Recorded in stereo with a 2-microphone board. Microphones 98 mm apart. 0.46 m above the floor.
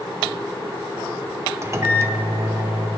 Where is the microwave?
30° right (ahead or behind), 0.6 m.